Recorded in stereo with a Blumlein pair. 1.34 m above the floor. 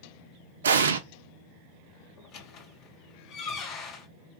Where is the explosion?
65° right, 0.6 m.